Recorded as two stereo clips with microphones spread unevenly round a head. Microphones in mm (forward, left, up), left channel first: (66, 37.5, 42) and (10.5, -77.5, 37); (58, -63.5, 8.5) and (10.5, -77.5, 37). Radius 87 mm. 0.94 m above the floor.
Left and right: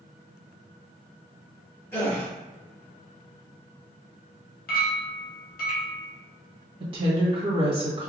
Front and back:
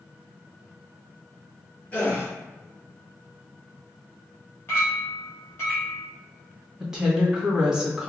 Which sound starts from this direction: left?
A clink, at 4.7 s.